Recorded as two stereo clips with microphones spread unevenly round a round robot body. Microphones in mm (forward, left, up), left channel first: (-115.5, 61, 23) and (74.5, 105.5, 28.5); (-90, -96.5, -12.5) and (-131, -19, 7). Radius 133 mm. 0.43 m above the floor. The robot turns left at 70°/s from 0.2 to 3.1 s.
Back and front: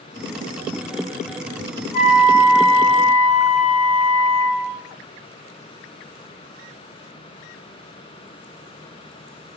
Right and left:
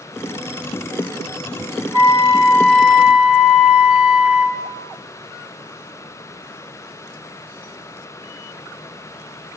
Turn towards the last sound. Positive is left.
turn(degrees=-155)